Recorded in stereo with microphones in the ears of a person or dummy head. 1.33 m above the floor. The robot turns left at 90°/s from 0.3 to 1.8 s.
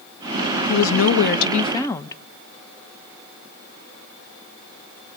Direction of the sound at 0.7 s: 125° left.